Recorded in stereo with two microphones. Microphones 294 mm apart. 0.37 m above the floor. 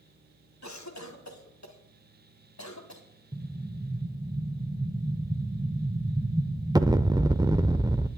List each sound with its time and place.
0.6 s a cough: 65° left (ahead or behind), 2 m
3.3 s an explosion: 15° right (ahead or behind), 0.5 m